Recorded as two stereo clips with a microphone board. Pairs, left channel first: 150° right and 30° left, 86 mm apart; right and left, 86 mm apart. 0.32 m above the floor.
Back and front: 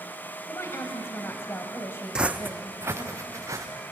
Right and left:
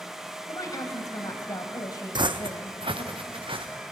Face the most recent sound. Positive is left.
turn(degrees=85)